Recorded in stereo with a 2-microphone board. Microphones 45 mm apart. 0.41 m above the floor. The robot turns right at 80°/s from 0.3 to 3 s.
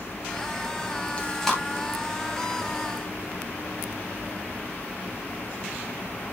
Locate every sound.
1.2 s chewing: 30° left (ahead or behind), 2.5 m; by 1.6 s centre (ahead or behind), 2.5 m